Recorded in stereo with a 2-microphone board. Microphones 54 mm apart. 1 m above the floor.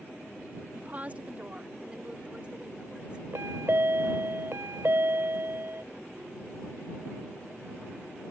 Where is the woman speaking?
35° right (ahead or behind); by 3.2 s 20° right (ahead or behind).